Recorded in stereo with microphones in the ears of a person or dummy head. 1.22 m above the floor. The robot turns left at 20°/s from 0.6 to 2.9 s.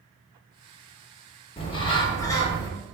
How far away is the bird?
About 0.7 m.